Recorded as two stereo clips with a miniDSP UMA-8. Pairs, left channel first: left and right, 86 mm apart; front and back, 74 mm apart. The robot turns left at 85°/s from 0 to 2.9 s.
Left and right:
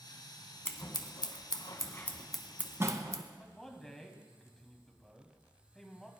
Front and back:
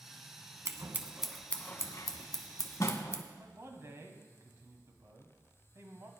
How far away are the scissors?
About 0.9 m.